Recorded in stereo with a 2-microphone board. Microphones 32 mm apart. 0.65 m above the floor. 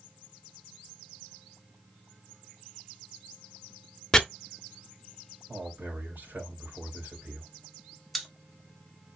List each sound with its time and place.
4.1 s chopping: 15° left (ahead or behind), 0.6 m
5.5 s a man speaking: 60° right (ahead or behind), 2.5 m
8.1 s a pop: centre (ahead or behind), 1.0 m